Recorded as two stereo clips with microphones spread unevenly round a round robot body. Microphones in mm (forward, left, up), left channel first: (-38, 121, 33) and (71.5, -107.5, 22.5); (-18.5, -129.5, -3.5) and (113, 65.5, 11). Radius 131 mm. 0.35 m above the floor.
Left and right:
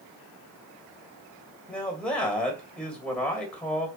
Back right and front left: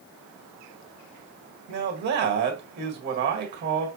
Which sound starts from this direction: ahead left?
A man speaking, at 1.7 s.